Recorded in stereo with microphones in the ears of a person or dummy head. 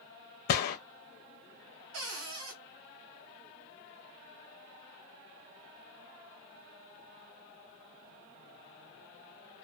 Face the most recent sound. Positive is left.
turn(degrees=-75)  # may be behind; listen again after turning